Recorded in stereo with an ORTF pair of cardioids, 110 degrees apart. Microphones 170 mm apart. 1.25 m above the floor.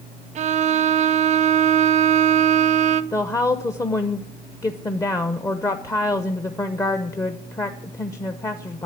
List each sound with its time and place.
0.3 s a violin: 45° right, 0.7 m
3.1 s a woman speaking: 20° left, 0.7 m